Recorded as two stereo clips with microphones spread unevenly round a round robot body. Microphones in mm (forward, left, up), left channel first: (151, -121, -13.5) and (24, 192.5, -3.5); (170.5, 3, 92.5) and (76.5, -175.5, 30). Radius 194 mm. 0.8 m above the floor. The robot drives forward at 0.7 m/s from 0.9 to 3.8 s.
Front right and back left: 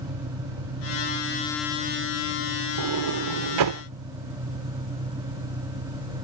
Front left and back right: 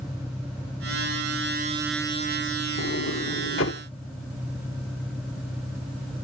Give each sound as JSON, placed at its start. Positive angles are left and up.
{"t": 0.0, "sound": "an engine running", "azimuth_deg": 145}
{"t": 2.8, "sound": "a sliding door", "azimuth_deg": 100}